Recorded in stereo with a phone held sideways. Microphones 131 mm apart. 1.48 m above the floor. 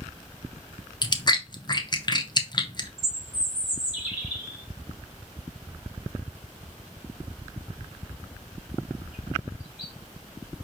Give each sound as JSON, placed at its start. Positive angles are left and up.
{"t": 1.0, "sound": "chewing", "side_deg": 35, "distance_m": 0.5}
{"t": 3.0, "sound": "a bird", "side_deg": -5, "distance_m": 2.0}